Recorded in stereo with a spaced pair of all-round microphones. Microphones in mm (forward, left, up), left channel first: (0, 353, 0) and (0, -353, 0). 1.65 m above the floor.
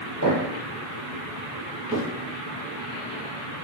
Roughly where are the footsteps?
Right.